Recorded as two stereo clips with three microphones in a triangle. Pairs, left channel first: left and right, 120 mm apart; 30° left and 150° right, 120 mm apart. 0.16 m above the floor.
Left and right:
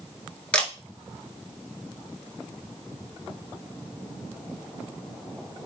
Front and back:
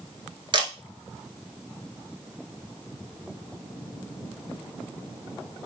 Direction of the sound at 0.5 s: 170° left.